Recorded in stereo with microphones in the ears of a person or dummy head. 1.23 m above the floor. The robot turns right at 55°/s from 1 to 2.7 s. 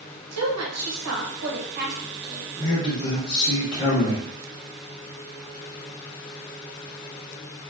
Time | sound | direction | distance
0.3 | a woman speaking | 90° right | 1.1 m
2.6 | a man speaking | 15° left (ahead or behind) | 0.9 m